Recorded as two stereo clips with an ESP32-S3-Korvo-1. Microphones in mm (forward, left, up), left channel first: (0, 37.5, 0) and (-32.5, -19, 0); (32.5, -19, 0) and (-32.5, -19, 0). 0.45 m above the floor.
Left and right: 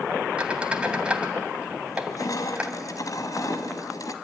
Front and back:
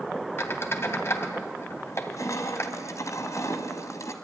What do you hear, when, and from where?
0.4 s a squeak: 45° right, 2 m
1.9 s crushing: 35° left, 2 m